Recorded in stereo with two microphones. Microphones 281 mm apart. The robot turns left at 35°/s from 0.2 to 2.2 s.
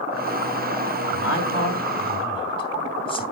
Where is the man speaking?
50° left (ahead or behind), 3 m; by 3.2 s 20° left (ahead or behind), 3 m.